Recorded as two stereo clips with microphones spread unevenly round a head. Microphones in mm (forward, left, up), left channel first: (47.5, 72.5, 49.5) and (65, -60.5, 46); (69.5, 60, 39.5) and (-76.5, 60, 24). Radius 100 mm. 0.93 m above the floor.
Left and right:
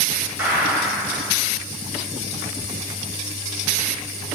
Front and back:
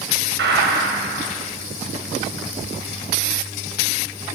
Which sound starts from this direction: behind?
A gunshot, at 0.4 s.